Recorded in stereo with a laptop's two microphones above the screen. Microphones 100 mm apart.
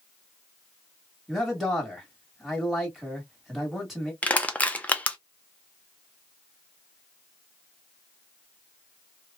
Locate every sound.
1.3 s a man speaking: centre (ahead or behind), 1.6 m
4.2 s crushing: 15° left (ahead or behind), 0.6 m